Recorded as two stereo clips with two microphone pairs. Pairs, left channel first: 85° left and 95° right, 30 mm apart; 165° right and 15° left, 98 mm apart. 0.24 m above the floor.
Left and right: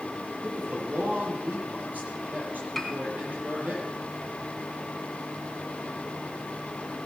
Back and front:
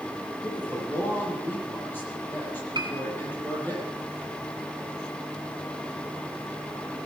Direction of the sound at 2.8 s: Straight ahead.